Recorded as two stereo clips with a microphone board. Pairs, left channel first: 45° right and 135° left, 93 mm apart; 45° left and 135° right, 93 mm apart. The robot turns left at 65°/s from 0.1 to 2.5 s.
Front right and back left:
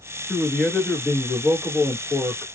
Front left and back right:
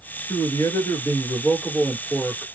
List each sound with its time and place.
0.3 s a man speaking: 60° left, 2.0 m; by 2.5 s 85° right, 2.0 m